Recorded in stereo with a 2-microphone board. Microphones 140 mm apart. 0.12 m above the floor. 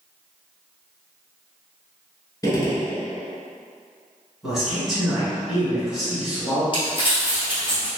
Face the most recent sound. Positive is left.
turn(degrees=40)  # may be behind; listen again after turning